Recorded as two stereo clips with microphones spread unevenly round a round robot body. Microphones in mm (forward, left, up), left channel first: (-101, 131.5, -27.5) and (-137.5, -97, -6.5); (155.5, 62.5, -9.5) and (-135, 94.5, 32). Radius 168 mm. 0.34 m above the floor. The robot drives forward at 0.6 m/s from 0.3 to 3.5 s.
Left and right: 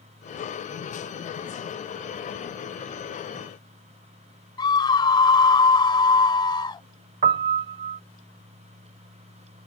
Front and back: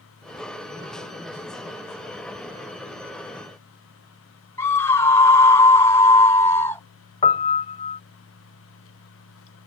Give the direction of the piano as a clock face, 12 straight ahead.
2 o'clock.